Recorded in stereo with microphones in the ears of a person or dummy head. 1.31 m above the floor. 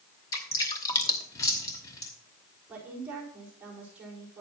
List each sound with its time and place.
0.3 s dripping: 20° left (ahead or behind), 1.1 m
2.7 s a woman speaking: 10° right (ahead or behind), 4 m